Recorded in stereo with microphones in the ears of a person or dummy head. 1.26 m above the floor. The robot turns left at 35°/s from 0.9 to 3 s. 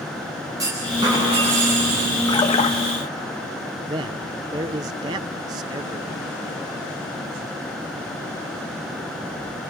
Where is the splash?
15° left (ahead or behind), 1.6 m; by 2.8 s 35° left (ahead or behind), 1.6 m.